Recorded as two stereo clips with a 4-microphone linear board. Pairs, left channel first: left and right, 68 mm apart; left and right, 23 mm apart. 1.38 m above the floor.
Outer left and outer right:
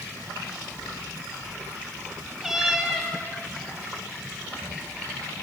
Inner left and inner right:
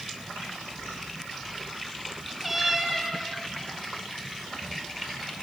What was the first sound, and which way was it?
A cat meowing, 5° right (ahead or behind).